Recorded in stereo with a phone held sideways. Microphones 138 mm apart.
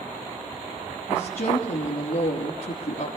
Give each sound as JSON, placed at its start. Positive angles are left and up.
{"t": 1.1, "sound": "a woman speaking", "side_deg": 85, "distance_m": 2.5}